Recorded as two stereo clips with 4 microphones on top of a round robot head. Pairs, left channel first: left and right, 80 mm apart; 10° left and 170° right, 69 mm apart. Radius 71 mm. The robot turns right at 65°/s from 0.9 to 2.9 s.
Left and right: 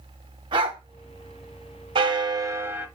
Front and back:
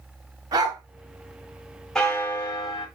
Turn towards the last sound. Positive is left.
turn(degrees=-10)